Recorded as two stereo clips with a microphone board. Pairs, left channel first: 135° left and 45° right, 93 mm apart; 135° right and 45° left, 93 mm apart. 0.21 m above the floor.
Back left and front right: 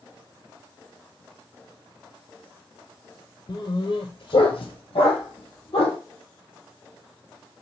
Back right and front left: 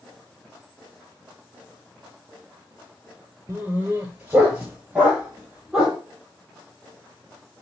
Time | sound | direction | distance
3.5 | a dog barking | 110° left | 1.0 m